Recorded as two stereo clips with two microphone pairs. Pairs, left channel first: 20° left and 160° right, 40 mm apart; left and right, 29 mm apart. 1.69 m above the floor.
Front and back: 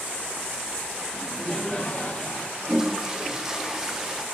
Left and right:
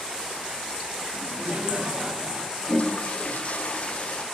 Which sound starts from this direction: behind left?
A toilet flushing, at 2.6 s.